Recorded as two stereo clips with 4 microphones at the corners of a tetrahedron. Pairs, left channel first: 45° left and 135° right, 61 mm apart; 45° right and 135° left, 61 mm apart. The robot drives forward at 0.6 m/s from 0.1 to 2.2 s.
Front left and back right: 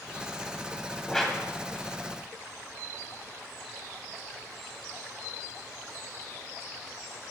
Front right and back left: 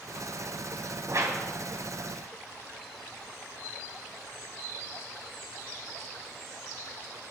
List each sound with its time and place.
1.1 s a whoosh: 125° left, 2.5 m; by 1.4 s 130° left, 2.5 m